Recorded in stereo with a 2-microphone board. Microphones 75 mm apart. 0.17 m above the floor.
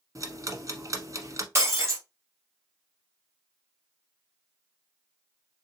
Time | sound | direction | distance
0.1 | ticking | 45° right (ahead or behind) | 0.9 m
1.6 | breaking glass | 35° right (ahead or behind) | 1.7 m